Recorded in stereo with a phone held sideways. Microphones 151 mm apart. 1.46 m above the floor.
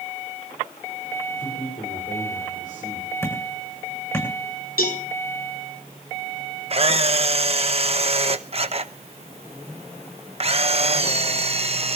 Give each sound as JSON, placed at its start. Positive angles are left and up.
{"t": 1.4, "sound": "a man speaking", "side_deg": 65, "distance_m": 7.0}
{"t": 3.2, "sound": "hammering", "side_deg": 20, "distance_m": 7.0}
{"t": 4.8, "sound": "a cowbell", "side_deg": 75, "distance_m": 4.0}
{"t": 6.7, "sound": "a camera shutter", "side_deg": -40, "distance_m": 0.9}